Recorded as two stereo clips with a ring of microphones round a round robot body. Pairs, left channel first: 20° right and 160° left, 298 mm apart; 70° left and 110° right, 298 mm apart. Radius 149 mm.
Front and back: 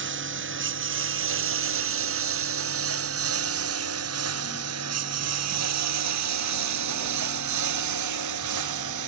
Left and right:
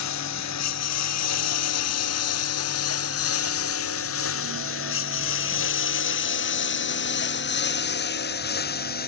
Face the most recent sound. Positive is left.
turn(degrees=130)